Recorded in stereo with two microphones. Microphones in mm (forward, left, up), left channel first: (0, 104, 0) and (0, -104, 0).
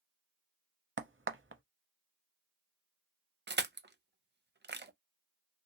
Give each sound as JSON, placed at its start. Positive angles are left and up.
{"t": 1.0, "sound": "a crack", "side_deg": -80, "distance_m": 0.7}
{"t": 3.5, "sound": "crushing", "side_deg": -60, "distance_m": 0.5}